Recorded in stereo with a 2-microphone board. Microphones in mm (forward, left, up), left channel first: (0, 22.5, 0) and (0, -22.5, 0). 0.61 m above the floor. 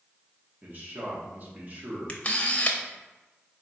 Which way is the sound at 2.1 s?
30° left (ahead or behind).